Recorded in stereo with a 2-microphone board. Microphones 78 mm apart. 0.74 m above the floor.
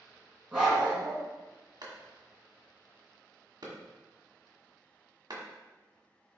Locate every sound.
0.5 s a dog barking: 10° right (ahead or behind), 3 m
1.8 s a clap: 60° right (ahead or behind), 1.8 m